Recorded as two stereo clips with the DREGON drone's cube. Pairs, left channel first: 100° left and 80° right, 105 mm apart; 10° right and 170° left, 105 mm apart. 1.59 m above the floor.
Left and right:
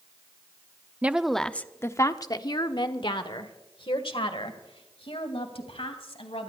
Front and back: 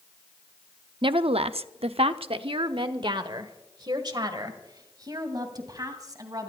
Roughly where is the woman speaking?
Behind right.